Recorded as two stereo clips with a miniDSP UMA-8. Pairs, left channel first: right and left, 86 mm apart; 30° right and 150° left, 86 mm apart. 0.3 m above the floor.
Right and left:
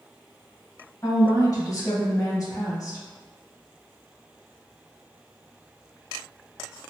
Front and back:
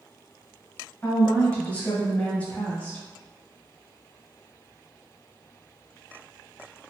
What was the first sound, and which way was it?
A woman speaking, 95° right.